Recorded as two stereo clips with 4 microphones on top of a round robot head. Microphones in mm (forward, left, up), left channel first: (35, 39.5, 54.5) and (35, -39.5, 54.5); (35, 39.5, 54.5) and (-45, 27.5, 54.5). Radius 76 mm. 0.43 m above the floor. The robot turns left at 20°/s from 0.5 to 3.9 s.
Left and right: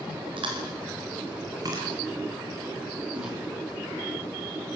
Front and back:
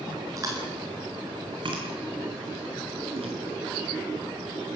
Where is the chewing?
115° right, 4.5 m; by 3.4 s 170° right, 4.5 m.